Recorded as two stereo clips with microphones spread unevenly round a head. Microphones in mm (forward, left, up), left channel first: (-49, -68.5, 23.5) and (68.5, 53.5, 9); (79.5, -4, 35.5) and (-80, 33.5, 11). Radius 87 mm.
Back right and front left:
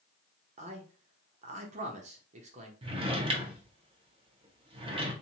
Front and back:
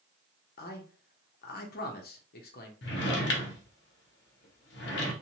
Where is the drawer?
15° right, 0.6 m.